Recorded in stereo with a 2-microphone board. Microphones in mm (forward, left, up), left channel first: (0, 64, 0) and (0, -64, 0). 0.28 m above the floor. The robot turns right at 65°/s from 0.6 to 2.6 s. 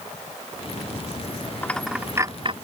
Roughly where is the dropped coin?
Centre.